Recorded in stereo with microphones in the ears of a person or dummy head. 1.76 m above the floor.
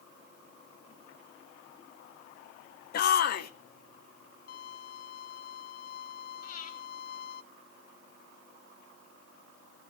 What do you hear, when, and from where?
2.9 s a shout: 50° left (ahead or behind), 0.7 m
4.5 s a violin: 60° left (ahead or behind), 0.9 m
6.4 s breathing: 50° left (ahead or behind), 3 m